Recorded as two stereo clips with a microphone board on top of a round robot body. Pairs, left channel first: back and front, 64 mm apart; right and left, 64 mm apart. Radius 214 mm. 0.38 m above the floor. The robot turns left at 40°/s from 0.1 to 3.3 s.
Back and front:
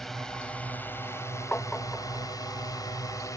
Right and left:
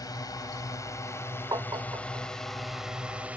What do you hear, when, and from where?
0.0 s a drone: 95° right; by 3.4 s 155° left
1.5 s tapping: 115° left; by 2.3 s 80° left